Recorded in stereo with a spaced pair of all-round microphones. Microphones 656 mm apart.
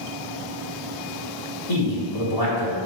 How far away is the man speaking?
About 3 m.